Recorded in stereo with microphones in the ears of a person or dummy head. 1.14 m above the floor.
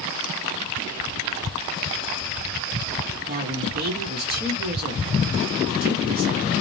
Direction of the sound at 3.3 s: 40° right (ahead or behind).